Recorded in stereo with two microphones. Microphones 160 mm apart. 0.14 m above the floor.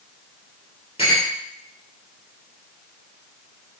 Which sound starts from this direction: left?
A clink, at 1.0 s.